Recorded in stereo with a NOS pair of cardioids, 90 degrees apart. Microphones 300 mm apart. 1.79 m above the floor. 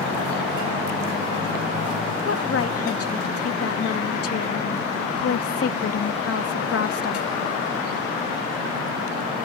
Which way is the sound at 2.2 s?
50° left.